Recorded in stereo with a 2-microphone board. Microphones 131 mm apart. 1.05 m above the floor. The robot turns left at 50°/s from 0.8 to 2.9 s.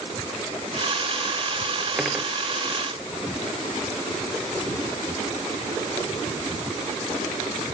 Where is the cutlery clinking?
Centre (ahead or behind); by 2.3 s 15° right (ahead or behind).